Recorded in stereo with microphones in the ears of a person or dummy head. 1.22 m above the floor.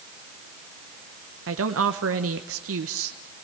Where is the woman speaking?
70° right (ahead or behind), 1.1 m.